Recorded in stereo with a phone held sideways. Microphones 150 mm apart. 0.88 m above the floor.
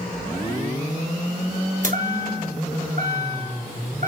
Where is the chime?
55° right (ahead or behind), 2.5 m.